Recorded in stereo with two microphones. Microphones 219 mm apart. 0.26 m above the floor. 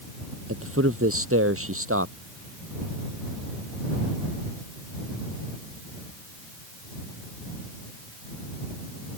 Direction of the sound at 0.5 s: 80° right.